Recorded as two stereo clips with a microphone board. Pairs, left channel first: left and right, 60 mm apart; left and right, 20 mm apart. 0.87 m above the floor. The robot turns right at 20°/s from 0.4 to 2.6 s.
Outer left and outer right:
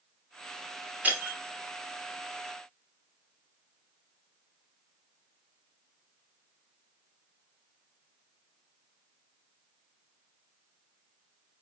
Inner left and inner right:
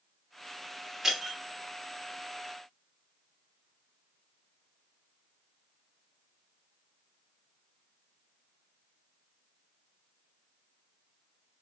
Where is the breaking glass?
25° right (ahead or behind), 0.9 m; by 1.4 s 30° right (ahead or behind), 0.9 m.